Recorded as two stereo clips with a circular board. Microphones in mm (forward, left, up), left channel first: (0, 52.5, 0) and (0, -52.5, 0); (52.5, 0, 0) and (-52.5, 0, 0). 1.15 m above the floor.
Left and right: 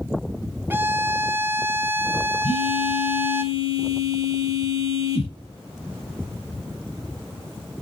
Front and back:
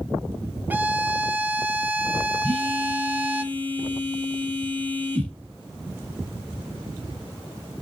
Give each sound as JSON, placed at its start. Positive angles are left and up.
{"t": 0.7, "sound": "a violin", "azimuth_deg": -130, "distance_m": 0.8}
{"t": 2.4, "sound": "a phone buzzing", "azimuth_deg": 70, "distance_m": 2.5}